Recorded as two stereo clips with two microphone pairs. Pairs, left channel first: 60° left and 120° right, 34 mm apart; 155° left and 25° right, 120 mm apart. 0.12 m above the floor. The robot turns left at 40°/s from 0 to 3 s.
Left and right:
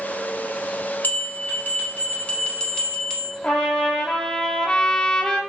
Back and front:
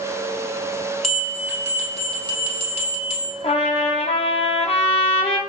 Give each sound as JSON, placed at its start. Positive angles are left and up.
{"t": 1.0, "sound": "a bell", "azimuth_deg": 70, "distance_m": 1.9}
{"t": 3.4, "sound": "a trumpet", "azimuth_deg": 120, "distance_m": 1.1}